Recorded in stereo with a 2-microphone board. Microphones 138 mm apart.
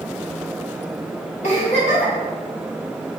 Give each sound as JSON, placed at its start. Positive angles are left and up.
{"t": 1.4, "sound": "a giggle", "side_deg": 60, "distance_m": 1.8}